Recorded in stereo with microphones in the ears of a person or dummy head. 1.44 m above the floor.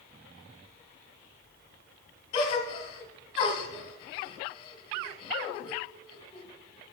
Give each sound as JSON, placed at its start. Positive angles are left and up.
{"t": 2.3, "sound": "a gasp", "side_deg": 40, "distance_m": 1.6}